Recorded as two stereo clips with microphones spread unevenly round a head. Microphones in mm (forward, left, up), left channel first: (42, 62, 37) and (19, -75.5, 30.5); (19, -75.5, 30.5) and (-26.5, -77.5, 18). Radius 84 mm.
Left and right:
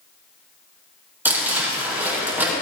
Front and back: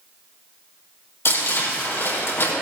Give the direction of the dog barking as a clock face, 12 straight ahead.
No dog barking in this recording.